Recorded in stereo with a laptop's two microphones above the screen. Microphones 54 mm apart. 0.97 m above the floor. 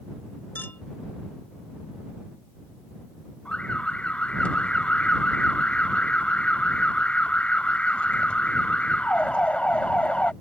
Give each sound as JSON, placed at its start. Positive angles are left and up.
{"t": 0.6, "sound": "a clink", "side_deg": 40}
{"t": 3.5, "sound": "an alarm", "side_deg": 20}